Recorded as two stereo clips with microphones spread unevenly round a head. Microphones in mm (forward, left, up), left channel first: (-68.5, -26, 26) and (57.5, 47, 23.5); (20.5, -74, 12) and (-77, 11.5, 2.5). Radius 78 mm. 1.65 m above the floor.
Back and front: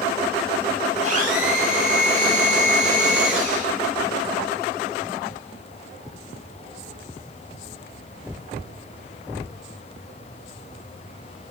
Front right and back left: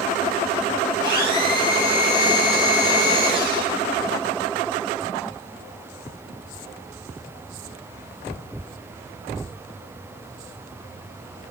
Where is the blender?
15° right, 8.5 m.